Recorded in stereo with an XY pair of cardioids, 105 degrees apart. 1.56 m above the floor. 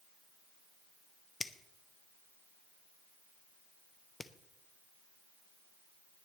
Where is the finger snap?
20° left, 0.9 m.